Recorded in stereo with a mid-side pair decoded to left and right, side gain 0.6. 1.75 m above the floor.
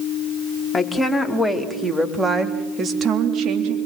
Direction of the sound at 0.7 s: 10° left.